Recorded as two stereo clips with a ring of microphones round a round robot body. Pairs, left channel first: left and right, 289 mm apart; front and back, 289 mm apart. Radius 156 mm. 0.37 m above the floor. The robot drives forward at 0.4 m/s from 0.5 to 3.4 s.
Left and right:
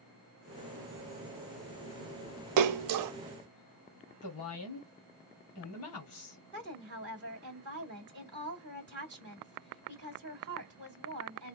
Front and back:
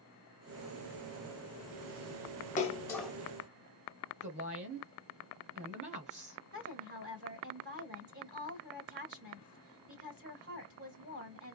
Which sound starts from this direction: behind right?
A woman speaking, at 6.5 s.